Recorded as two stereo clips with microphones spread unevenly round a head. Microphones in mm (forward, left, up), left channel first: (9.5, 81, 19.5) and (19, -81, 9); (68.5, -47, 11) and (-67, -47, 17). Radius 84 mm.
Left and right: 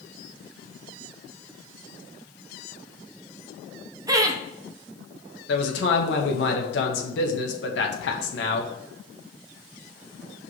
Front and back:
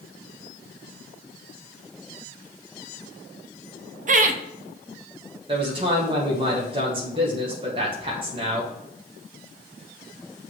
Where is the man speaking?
120° left, 1.4 m.